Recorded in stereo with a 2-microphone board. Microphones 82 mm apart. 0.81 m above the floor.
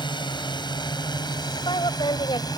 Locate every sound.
0.0 s a drone: 65° left (ahead or behind); by 2.6 s 55° left (ahead or behind)
1.6 s a woman speaking: 75° left (ahead or behind)